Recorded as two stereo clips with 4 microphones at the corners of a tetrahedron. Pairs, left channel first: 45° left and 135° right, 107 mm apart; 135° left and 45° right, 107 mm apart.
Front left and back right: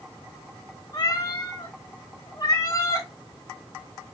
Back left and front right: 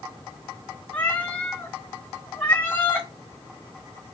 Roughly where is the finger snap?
No finger snap in this recording.